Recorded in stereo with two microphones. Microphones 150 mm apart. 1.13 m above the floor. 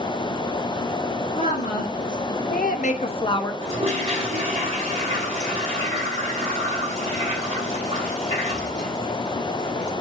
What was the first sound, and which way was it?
A woman speaking, 60° left (ahead or behind).